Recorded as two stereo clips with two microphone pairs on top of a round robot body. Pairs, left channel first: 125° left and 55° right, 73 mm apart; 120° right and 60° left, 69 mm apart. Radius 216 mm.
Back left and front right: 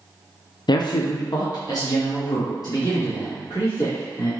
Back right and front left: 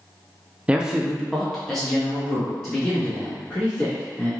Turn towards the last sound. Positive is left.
turn(degrees=160)